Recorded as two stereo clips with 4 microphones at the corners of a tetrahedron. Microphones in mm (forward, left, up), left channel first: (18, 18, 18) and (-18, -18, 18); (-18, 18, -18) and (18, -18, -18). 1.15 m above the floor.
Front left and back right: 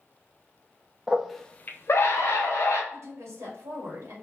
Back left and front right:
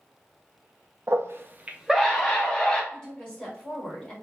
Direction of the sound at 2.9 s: 155° right.